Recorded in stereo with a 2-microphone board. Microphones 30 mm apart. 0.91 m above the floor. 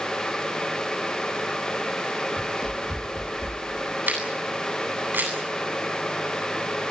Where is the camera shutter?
85° right, 9 m.